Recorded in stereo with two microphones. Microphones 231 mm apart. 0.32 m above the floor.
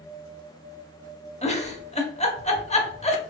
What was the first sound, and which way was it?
A giggle, 30° left (ahead or behind).